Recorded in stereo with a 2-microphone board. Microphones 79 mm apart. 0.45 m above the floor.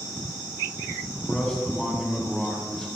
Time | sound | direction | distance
1.1 | a man speaking | 10° left (ahead or behind) | 3.5 m